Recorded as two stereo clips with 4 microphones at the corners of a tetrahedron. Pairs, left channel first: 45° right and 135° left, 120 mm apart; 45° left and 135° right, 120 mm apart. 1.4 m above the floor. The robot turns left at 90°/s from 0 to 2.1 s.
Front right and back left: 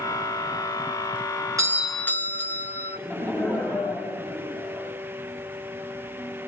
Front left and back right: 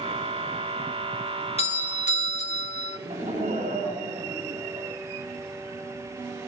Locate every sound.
1.6 s a doorbell: 75° left, 1.6 m; by 3.0 s 25° left, 1.6 m
3.0 s laughter: 120° right, 9 m